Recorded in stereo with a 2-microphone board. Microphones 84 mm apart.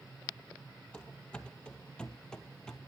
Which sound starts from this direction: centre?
Running footsteps, at 0.9 s.